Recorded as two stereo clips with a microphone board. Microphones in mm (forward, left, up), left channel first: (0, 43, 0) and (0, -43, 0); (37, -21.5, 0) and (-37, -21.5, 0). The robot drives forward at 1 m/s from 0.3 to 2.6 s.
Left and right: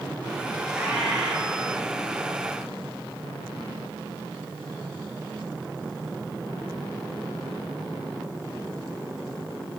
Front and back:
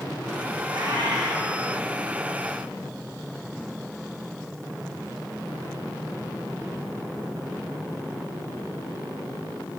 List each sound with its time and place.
0.7 s a cat meowing: 170° right, 4 m